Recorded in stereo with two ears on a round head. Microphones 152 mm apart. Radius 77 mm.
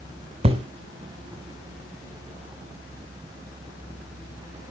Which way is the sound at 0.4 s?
35° right (ahead or behind).